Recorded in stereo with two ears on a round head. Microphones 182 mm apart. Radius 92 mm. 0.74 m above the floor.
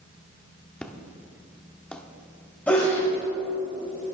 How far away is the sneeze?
About 3 m.